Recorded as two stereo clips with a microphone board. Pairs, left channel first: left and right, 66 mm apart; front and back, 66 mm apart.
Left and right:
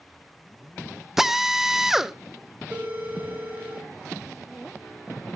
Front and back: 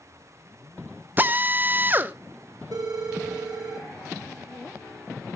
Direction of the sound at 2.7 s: 150° right.